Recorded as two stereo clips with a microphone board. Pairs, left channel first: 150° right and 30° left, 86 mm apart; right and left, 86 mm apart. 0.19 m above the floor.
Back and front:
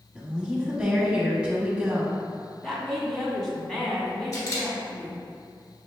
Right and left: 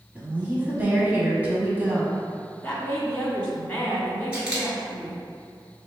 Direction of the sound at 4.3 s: 165° left.